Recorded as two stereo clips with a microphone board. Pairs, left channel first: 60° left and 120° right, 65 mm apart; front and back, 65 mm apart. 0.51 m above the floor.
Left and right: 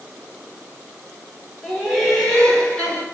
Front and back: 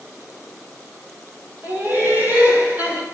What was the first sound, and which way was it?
Laughter, 155° left.